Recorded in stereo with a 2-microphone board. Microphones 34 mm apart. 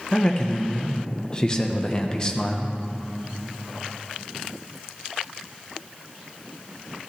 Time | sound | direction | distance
0.1 | a man speaking | 25° left (ahead or behind) | 1.1 m